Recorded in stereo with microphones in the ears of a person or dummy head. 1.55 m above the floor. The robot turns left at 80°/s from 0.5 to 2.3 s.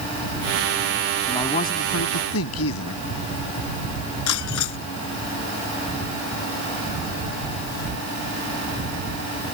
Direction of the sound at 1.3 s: 165° left.